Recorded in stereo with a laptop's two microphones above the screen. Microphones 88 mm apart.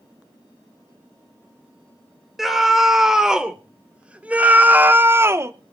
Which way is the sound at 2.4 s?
5° right (ahead or behind).